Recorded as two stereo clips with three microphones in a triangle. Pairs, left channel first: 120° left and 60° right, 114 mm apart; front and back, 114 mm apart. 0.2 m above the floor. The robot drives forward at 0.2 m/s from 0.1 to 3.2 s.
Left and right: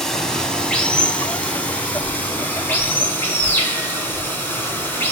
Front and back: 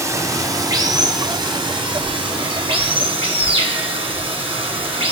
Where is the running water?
160° right, 0.8 m; by 5.1 s 170° right, 1.2 m.